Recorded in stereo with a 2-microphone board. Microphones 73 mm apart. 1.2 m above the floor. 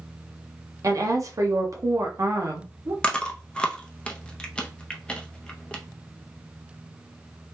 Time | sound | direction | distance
0.8 | a woman speaking | 50° right (ahead or behind) | 0.8 m
3.0 | chewing | 15° left (ahead or behind) | 0.5 m